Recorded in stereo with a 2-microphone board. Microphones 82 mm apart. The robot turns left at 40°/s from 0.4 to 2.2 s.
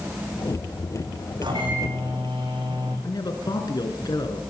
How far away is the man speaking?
About 2.5 m.